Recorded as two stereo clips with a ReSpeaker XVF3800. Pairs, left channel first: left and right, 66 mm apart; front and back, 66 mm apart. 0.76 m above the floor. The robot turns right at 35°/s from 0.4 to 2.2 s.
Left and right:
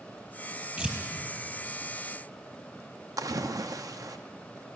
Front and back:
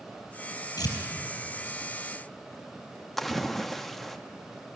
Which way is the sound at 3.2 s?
85° right.